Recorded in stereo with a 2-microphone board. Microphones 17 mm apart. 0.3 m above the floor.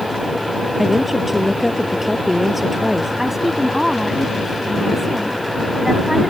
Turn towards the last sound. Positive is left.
turn(degrees=-20)  # may be behind; listen again after turning